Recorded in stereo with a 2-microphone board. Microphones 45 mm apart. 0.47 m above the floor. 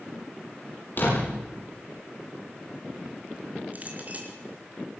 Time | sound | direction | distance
1.0 | a door slam | 45° left (ahead or behind) | 9.5 m
3.7 | a clink | 35° right (ahead or behind) | 4 m